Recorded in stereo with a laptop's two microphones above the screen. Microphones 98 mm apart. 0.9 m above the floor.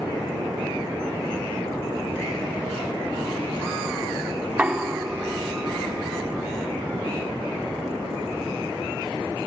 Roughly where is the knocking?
Centre.